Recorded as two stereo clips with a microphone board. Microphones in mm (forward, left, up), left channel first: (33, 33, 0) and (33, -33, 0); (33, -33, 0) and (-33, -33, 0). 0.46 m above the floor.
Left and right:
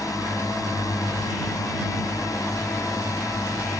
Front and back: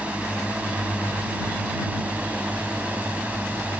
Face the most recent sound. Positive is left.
turn(degrees=115)